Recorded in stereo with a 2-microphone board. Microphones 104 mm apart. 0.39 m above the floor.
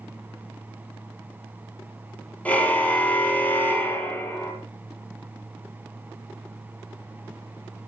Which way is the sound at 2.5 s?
15° left (ahead or behind).